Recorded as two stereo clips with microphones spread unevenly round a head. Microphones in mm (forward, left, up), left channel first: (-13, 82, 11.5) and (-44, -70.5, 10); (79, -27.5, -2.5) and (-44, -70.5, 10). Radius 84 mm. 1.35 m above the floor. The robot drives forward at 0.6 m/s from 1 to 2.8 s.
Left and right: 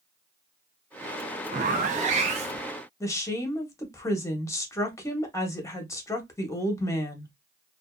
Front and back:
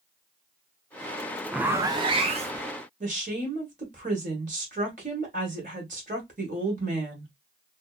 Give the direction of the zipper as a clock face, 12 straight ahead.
3 o'clock.